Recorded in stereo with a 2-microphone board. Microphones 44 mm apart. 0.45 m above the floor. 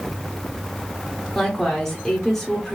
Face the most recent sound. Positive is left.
turn(degrees=10)  # may be behind; listen again after turning